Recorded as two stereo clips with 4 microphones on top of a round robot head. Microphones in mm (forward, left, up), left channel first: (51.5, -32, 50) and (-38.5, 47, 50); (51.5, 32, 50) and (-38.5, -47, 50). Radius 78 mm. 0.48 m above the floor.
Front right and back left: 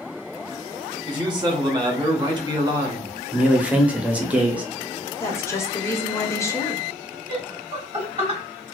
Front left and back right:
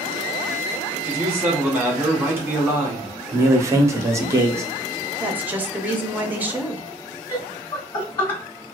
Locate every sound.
1.1 s a man speaking: 155° left, 1.3 m
3.3 s a man speaking: 160° right, 0.8 m
5.2 s a woman speaking: 80° right, 0.7 m
7.3 s laughter: 80° left, 1.9 m